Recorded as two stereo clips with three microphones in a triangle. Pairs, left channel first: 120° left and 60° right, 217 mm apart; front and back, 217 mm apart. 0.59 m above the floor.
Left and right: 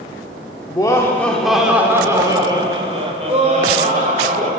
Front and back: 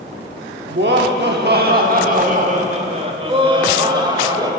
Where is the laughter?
175° right, 1.0 m; by 4.5 s 110° right, 2 m.